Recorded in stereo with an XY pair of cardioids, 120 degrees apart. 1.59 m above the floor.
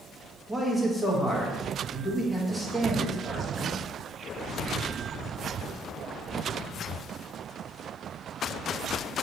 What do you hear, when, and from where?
0.5 s a man speaking: 5° left, 1.0 m